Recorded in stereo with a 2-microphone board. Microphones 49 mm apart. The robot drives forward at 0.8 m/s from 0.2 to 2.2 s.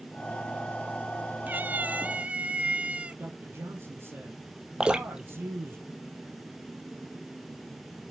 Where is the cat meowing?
35° right (ahead or behind), 0.5 m; by 3.2 s 25° right (ahead or behind), 0.7 m.